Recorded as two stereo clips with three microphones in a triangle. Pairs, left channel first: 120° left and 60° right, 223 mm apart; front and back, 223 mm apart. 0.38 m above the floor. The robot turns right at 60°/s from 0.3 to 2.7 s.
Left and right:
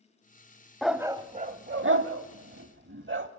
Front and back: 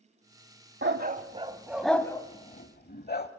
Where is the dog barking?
150° right, 0.8 m; by 3.3 s 40° right, 0.8 m.